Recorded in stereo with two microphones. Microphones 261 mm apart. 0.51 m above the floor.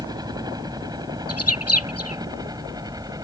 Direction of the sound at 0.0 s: 15° right (ahead or behind).